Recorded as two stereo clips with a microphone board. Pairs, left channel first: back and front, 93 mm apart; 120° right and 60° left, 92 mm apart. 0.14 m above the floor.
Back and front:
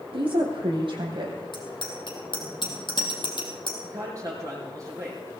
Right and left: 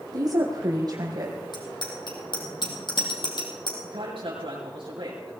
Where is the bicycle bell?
150° right, 3 m.